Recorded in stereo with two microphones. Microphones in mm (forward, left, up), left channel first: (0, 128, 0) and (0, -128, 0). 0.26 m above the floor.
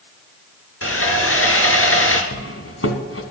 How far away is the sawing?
About 1.4 m.